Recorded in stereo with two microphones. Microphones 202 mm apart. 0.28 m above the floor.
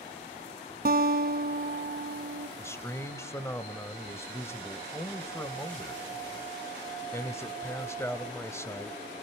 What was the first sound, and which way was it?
A guitar, 50° right (ahead or behind).